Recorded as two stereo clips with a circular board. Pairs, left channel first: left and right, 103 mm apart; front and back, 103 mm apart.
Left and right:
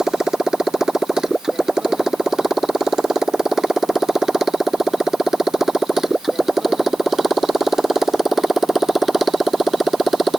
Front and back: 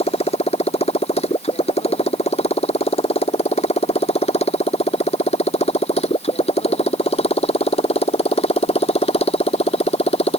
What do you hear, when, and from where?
0.0 s a motorcycle: 5° right